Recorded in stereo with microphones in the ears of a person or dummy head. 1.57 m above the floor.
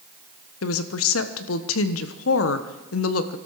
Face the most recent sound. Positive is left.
turn(degrees=85)